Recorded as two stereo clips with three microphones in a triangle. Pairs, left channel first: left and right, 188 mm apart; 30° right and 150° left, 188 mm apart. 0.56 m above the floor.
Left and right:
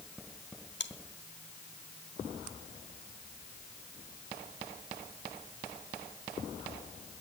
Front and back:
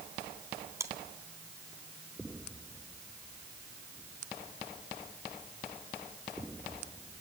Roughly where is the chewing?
Left.